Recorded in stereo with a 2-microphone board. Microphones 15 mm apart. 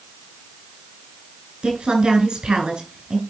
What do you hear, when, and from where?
1.6 s a woman speaking: 65° right (ahead or behind), 4.5 m